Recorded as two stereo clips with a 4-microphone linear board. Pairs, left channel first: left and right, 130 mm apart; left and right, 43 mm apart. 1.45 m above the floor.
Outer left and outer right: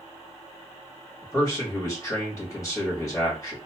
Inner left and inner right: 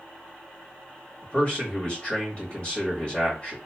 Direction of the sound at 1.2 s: 25° left (ahead or behind).